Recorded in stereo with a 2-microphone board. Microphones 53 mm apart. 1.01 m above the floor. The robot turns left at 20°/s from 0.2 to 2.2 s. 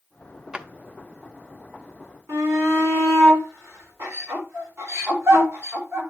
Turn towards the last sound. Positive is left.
turn(degrees=-50)  # may be behind; listen again after turning